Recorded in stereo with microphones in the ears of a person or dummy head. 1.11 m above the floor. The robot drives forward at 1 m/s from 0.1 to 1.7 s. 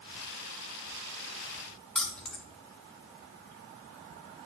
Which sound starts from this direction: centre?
Keys jangling, at 1.9 s.